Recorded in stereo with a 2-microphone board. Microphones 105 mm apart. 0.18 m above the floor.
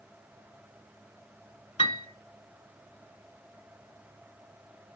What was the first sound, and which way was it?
A piano, 65° left (ahead or behind).